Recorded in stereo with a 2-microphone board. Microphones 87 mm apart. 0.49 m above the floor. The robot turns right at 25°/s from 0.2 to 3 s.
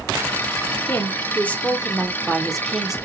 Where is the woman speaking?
140° left, 0.8 m; by 3.0 s 170° right, 0.8 m.